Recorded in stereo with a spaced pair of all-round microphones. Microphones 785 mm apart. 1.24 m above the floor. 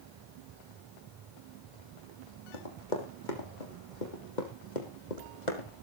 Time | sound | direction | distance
2.5 | running footsteps | 75° left (ahead or behind) | 4 m